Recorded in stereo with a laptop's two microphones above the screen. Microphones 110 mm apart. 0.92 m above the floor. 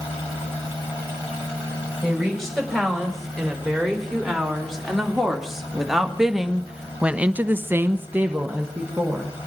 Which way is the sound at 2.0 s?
Centre (ahead or behind).